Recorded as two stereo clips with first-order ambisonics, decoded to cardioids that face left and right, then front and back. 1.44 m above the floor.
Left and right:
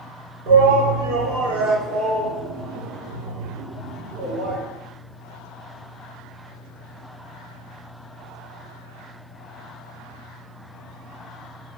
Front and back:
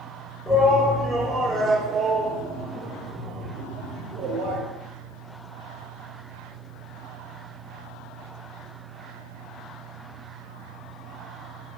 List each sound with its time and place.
0.5 s a shout: 85° right, 4 m; by 4.6 s 145° right, 4 m